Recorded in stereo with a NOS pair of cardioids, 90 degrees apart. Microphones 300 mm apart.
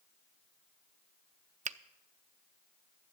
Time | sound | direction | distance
1.6 | a finger snap | 25° right | 0.6 m